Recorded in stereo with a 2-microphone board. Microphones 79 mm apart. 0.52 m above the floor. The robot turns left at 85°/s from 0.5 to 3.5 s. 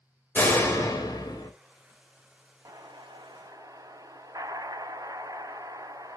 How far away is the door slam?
About 1.4 m.